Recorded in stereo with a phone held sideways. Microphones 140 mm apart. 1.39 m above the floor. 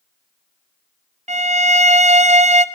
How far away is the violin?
About 0.5 m.